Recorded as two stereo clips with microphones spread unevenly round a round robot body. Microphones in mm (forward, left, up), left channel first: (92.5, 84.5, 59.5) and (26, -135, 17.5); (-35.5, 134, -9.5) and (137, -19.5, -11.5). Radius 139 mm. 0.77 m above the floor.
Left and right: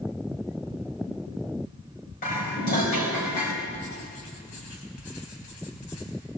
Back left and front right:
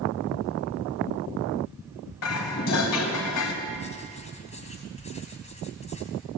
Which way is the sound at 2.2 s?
135° left.